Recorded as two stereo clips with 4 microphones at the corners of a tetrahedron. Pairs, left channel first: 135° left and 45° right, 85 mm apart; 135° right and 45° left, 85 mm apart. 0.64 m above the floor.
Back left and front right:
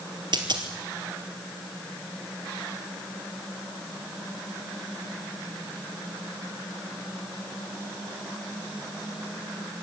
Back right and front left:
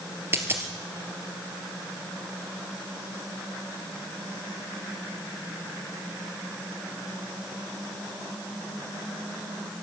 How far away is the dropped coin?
About 3.5 m.